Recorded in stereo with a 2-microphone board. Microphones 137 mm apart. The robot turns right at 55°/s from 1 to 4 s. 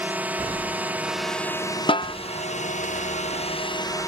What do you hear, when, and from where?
0.0 s a drone: 15° right; by 4.1 s 150° left
1.9 s a snare drum: 40° left (ahead or behind); by 2.1 s 30° left (ahead or behind)